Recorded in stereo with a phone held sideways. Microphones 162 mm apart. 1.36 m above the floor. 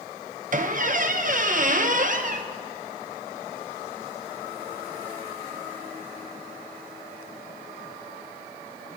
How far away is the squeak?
About 0.7 m.